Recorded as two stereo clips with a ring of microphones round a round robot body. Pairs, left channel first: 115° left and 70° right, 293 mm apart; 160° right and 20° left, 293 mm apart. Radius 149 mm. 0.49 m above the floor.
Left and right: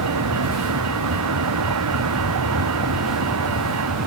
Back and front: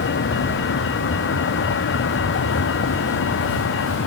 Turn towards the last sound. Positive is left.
turn(degrees=-105)